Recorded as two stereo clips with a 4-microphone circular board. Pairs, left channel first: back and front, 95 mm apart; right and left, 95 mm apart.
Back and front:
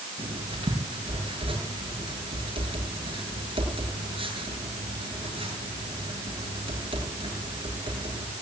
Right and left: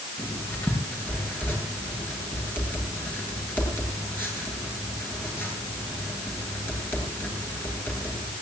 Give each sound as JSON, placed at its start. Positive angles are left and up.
{"t": 0.2, "sound": "writing", "azimuth_deg": -20, "distance_m": 9.0}